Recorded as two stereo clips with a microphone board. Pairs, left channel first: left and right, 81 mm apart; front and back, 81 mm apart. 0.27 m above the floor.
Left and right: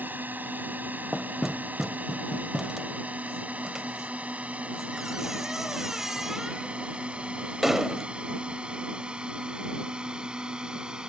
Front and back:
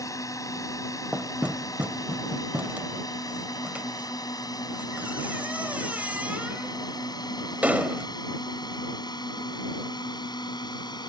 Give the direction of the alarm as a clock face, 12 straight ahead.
I don't hear an alarm.